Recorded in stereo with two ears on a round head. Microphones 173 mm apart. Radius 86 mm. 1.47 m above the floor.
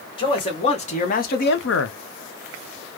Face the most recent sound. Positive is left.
turn(degrees=85)